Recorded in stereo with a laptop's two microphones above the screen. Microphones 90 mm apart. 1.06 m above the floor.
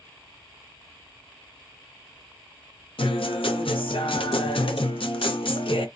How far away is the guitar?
About 0.5 m.